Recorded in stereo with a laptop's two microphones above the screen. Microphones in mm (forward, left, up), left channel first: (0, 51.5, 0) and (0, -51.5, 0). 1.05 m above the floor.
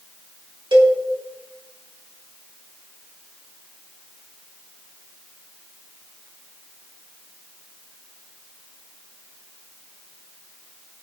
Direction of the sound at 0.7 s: 55° right (ahead or behind).